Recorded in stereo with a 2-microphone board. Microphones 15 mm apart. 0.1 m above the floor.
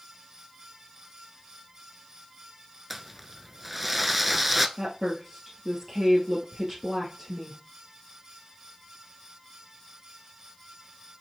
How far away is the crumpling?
About 0.6 m.